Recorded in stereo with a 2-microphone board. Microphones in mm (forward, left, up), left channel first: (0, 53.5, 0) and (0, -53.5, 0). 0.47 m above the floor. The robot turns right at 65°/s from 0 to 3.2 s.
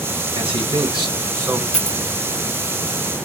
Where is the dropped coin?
10° right (ahead or behind), 1.4 m; by 2.0 s 5° left (ahead or behind), 1.4 m.